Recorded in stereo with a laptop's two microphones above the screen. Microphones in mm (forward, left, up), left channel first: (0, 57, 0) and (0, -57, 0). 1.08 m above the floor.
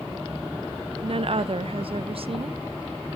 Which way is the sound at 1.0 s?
55° right (ahead or behind).